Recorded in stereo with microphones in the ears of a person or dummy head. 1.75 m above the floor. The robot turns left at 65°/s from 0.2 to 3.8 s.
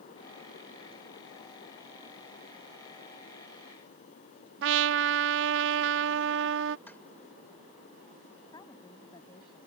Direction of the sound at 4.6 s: 75° right (ahead or behind).